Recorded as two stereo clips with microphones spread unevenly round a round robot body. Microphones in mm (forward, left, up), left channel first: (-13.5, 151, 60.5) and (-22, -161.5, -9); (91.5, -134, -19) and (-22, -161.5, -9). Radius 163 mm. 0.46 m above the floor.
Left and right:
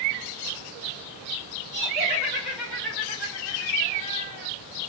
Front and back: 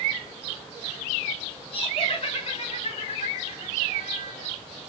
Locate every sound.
1.7 s laughter: 15° left, 1.9 m; by 4.5 s 20° left, 3.5 m